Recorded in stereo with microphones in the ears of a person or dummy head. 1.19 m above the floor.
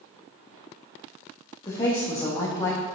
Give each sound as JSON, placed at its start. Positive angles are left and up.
{"t": 1.6, "sound": "a woman speaking", "side_deg": 25, "distance_m": 1.2}